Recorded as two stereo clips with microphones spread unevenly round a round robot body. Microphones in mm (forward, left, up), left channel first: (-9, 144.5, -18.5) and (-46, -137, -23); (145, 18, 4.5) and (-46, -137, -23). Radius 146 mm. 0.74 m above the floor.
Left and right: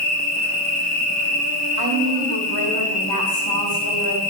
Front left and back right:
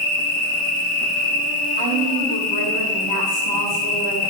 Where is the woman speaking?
70° left, 2.5 m.